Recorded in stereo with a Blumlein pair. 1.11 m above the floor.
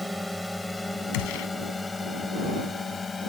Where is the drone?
Straight ahead; by 3.3 s 15° left.